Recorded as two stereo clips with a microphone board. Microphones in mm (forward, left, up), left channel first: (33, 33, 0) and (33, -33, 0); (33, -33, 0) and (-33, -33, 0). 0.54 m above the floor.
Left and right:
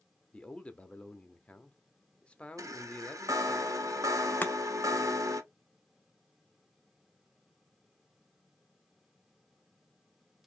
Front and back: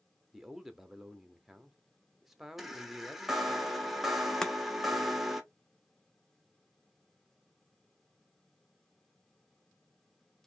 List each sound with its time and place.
0.3 s a man speaking: 100° left, 0.6 m
2.6 s a chime: 95° right, 0.8 m
4.4 s chopping: 70° left, 0.5 m